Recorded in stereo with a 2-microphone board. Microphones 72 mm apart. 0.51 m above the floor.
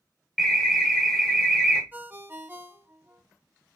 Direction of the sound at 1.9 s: 25° right (ahead or behind).